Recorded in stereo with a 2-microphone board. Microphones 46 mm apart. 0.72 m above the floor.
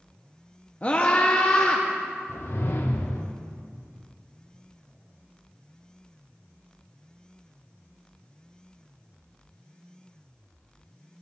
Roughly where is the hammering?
No hammering in this recording.